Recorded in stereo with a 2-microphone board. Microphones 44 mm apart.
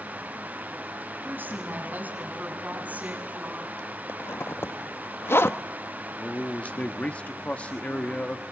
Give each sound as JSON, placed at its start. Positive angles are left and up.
{"t": 1.2, "sound": "a woman speaking", "side_deg": -40, "distance_m": 6.0}
{"t": 4.1, "sound": "a zipper", "side_deg": 60, "distance_m": 1.0}
{"t": 6.2, "sound": "a man speaking", "side_deg": 25, "distance_m": 1.2}